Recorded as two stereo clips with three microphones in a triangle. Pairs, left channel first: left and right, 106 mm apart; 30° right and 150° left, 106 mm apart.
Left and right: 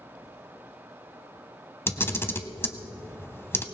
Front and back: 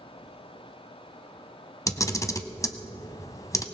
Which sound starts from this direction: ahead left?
A camera shutter, at 1.9 s.